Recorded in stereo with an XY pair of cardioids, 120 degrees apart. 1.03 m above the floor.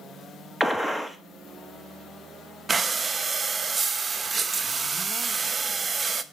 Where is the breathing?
20° right, 0.5 m.